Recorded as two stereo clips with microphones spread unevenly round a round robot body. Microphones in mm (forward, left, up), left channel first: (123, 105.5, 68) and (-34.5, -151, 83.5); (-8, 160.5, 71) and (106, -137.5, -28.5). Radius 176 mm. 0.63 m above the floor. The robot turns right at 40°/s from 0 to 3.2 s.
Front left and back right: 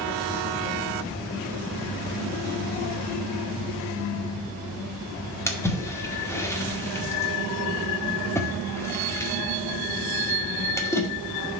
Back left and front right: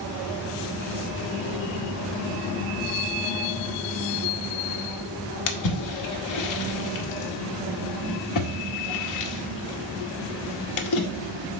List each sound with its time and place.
5.5 s a splash: 130° left, 1.2 m